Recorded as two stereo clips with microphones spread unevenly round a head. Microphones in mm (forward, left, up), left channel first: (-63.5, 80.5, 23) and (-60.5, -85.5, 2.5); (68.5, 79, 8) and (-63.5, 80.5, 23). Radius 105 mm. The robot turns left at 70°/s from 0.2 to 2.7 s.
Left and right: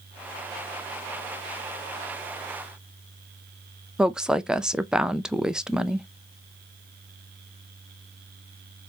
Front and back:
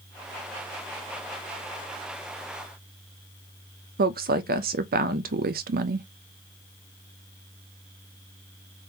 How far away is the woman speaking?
About 0.5 m.